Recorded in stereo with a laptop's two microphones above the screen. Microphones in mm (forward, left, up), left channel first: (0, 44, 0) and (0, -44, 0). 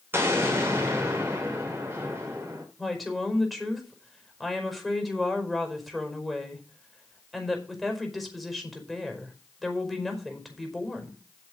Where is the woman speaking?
Centre (ahead or behind), 5 m.